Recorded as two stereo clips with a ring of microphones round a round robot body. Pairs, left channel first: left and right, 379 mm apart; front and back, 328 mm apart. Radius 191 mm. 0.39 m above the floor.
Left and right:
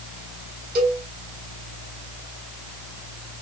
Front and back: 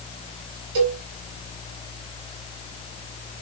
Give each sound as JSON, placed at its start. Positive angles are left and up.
{"t": 0.8, "sound": "a cowbell", "azimuth_deg": -155, "distance_m": 2.5}